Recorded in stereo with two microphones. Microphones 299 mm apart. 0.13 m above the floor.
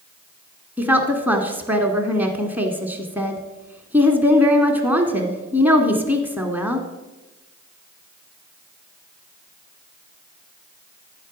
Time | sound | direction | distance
0.8 | a woman speaking | 5° right (ahead or behind) | 1.2 m